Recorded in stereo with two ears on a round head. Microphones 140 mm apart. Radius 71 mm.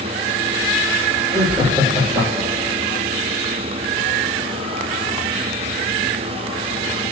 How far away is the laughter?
About 4.5 m.